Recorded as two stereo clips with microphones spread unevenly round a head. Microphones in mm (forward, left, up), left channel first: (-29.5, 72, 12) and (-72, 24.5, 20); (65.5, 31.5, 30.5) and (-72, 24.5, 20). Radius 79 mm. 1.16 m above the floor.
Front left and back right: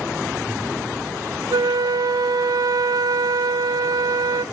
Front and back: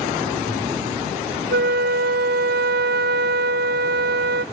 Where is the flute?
160° right, 1.0 m.